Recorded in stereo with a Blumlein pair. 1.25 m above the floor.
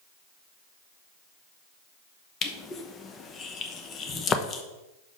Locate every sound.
2.4 s crushing: 25° left, 0.9 m